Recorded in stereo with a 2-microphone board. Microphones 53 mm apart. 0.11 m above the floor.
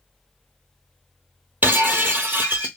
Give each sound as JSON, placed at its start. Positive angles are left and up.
{"t": 1.6, "sound": "breaking glass", "side_deg": -35, "distance_m": 0.7}